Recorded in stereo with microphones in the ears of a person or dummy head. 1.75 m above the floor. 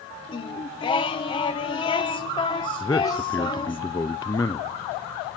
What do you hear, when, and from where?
0.3 s singing: 20° left (ahead or behind), 1.0 m
2.8 s a man speaking: 20° left (ahead or behind), 0.5 m